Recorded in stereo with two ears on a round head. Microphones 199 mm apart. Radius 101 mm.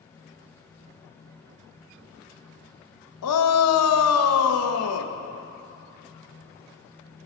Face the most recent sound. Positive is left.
turn(degrees=75)  # may be behind; listen again after turning